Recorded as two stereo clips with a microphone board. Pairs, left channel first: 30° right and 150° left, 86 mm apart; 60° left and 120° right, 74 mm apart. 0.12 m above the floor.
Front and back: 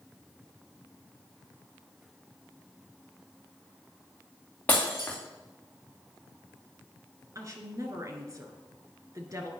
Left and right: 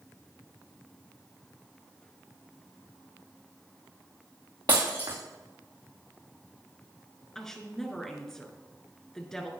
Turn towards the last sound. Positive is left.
turn(degrees=140)